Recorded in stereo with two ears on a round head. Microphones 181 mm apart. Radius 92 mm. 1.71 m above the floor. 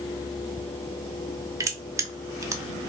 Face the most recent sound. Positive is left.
turn(degrees=-15)  # may be behind; listen again after turning